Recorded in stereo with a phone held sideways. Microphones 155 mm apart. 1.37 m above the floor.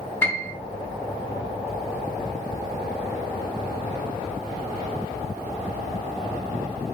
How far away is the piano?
About 1.9 m.